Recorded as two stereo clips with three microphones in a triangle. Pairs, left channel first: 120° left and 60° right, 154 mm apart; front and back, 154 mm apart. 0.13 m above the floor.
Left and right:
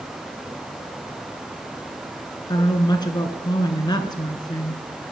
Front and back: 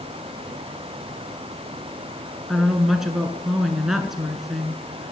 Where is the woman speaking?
95° left, 1.4 m.